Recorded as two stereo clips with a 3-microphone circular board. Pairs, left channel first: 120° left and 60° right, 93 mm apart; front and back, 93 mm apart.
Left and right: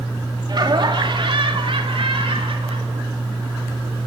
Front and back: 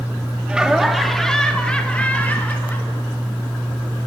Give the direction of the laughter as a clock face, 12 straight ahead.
3 o'clock.